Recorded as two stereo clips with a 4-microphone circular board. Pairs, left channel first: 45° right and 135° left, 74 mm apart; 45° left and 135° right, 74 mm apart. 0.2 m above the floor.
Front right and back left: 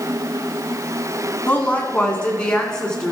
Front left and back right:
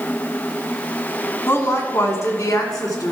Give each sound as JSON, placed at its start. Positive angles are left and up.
{"t": 1.5, "sound": "a woman speaking", "azimuth_deg": 10, "distance_m": 1.4}